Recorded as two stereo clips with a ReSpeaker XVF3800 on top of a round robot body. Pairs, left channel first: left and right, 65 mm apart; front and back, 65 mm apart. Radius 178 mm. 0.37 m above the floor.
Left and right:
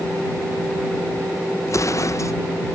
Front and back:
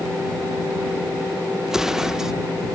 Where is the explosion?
100° left.